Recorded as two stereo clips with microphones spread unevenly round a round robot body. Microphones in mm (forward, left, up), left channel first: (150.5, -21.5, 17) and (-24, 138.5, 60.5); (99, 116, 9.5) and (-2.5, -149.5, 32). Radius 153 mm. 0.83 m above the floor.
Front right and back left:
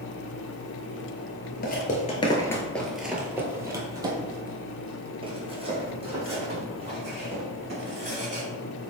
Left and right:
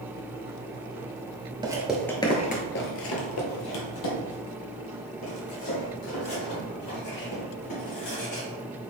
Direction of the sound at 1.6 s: 70° right.